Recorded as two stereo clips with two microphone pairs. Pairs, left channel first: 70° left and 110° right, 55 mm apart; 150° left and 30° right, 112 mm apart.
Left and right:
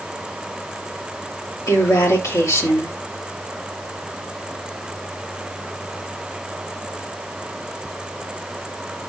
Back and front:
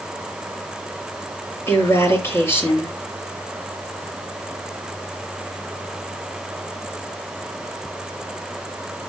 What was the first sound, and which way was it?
A woman speaking, 85° left.